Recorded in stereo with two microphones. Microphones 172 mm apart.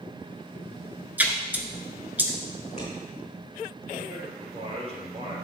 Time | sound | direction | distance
1.2 | a splash | 10° right (ahead or behind) | 0.9 m
2.6 | scissors | 45° left (ahead or behind) | 4 m
4.1 | a man speaking | 35° right (ahead or behind) | 2.5 m